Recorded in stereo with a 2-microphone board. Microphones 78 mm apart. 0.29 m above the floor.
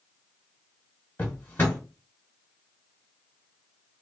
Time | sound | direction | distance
1.2 | a drawer | 25° left (ahead or behind) | 1.1 m